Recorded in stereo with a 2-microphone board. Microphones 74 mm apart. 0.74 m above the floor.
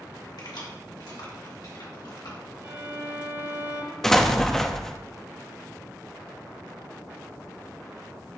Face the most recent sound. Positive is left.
turn(degrees=5)  # may be behind; listen again after turning